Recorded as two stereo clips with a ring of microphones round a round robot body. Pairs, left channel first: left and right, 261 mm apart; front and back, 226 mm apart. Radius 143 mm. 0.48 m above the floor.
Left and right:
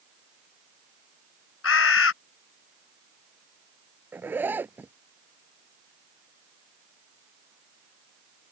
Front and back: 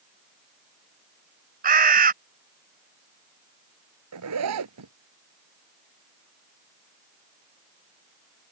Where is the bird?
130° left.